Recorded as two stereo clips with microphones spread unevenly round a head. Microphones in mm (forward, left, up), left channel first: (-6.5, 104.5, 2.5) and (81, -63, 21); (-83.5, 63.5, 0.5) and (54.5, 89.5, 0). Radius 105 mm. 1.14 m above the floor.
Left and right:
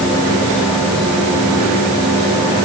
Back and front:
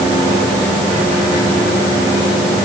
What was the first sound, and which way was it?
Only background noise.